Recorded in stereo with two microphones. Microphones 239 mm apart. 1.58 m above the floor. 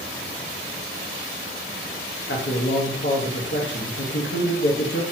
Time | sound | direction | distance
2.3 | a man speaking | 50° left (ahead or behind) | 1.0 m